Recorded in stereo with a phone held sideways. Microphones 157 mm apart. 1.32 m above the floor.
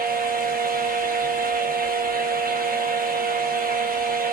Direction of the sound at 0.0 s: 65° right (ahead or behind).